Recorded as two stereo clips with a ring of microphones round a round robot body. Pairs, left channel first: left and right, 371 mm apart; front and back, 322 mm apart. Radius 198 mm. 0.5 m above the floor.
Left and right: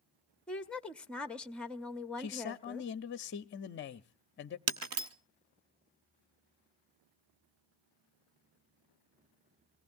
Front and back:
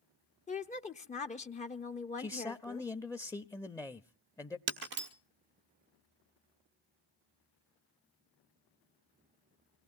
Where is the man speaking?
70° left, 0.7 m.